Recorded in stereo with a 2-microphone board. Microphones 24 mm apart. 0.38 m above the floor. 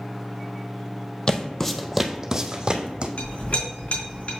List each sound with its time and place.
1.3 s footsteps: 30° left (ahead or behind), 0.8 m; by 3.1 s 45° right (ahead or behind), 1.3 m
3.2 s a clink: 60° left (ahead or behind), 3 m